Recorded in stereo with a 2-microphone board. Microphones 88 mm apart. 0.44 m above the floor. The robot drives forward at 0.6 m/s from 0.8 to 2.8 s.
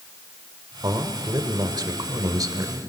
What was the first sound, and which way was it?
A man speaking, 45° right (ahead or behind).